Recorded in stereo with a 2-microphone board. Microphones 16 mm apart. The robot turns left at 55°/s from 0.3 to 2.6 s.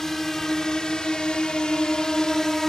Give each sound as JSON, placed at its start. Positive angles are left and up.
{"t": 0.0, "sound": "a drone", "side_deg": 30}